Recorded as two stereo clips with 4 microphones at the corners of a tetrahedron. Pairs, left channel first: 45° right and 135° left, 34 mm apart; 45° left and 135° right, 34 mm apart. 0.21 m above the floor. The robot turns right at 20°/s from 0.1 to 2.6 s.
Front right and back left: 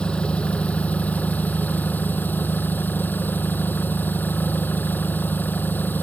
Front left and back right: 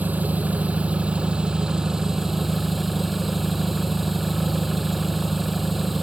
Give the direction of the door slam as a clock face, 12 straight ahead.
I don't hear a door slam.